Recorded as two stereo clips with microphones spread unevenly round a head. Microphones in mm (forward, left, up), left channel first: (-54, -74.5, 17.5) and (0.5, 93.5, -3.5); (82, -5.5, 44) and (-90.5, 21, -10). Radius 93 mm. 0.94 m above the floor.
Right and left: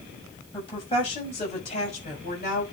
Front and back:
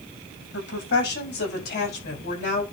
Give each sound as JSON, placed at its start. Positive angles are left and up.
{"t": 0.5, "sound": "a woman speaking", "azimuth_deg": -40, "distance_m": 6.0}